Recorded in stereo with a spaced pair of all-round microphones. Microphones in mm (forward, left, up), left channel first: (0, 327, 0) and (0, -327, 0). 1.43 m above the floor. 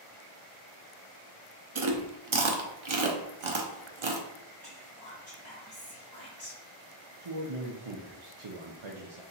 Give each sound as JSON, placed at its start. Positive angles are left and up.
{"t": 1.8, "sound": "chewing", "side_deg": -50, "distance_m": 0.7}
{"t": 4.6, "sound": "whispering", "side_deg": -35, "distance_m": 2.0}
{"t": 7.2, "sound": "a man speaking", "side_deg": -50, "distance_m": 0.7}